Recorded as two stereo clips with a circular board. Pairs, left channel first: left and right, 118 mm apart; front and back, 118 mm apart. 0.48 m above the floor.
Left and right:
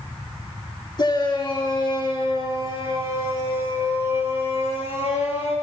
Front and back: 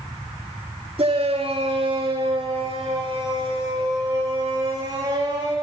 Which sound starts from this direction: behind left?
A shout, at 1.0 s.